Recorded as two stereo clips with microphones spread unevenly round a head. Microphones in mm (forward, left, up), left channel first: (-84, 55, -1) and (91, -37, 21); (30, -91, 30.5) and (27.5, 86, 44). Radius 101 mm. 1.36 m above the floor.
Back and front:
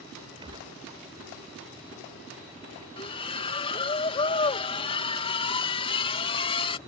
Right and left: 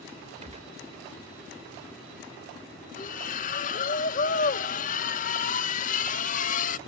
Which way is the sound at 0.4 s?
40° left.